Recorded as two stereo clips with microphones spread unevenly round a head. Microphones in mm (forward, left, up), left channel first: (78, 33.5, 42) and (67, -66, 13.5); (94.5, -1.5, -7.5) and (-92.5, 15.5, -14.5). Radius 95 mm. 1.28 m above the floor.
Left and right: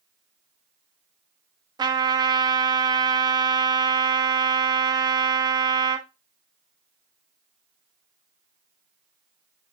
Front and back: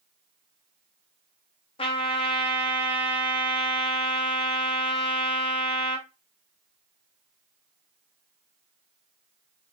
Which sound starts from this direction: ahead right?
A trumpet, at 1.8 s.